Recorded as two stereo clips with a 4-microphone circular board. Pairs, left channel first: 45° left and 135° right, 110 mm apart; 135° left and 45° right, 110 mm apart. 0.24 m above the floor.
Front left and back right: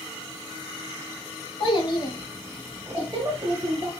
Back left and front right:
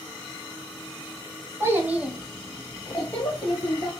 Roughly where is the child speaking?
Ahead.